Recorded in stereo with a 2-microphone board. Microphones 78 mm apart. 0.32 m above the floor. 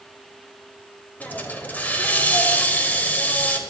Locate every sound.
1.2 s a hiss: 20° left (ahead or behind), 0.8 m